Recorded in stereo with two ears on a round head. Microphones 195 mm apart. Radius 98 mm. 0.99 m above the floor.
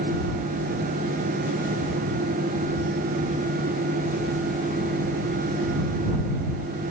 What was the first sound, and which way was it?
Only background noise.